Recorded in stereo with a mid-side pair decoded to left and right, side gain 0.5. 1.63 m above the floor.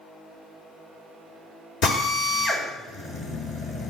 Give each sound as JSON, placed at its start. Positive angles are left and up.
{"t": 1.8, "sound": "a drill", "azimuth_deg": 65, "distance_m": 5.0}